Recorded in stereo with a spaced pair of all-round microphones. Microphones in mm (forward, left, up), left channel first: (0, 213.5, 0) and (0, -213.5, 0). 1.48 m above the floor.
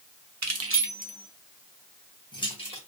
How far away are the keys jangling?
About 0.6 m.